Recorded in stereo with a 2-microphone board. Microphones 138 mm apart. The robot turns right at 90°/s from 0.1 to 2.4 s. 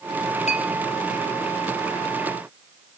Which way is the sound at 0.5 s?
55° left (ahead or behind).